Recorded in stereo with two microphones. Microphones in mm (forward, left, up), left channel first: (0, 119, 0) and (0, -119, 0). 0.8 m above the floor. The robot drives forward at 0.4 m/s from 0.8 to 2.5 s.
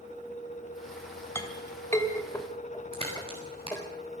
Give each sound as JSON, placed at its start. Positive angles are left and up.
{"t": 1.4, "sound": "a clink", "side_deg": 10, "distance_m": 2.5}
{"t": 2.9, "sound": "a crack", "side_deg": -25, "distance_m": 7.0}